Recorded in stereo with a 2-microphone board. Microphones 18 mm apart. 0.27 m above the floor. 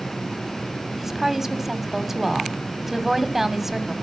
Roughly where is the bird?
I don't hear a bird.